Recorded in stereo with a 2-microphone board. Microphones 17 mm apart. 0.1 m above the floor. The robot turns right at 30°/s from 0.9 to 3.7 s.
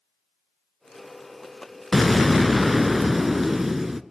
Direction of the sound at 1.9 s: 5° left (ahead or behind).